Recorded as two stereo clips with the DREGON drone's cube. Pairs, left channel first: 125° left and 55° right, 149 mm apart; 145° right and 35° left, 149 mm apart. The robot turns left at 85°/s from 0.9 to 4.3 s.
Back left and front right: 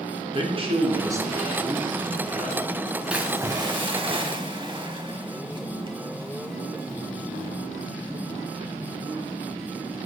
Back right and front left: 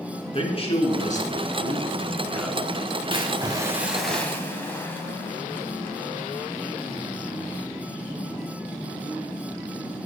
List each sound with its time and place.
0.3 s a man speaking: 100° right, 2.5 m; by 2.6 s 115° left, 2.5 m
3.1 s a splash: 25° left, 1.8 m; by 7.6 s 80° right, 1.8 m